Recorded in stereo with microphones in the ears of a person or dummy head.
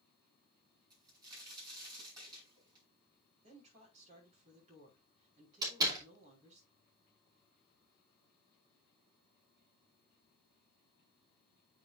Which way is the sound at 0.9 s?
25° right (ahead or behind).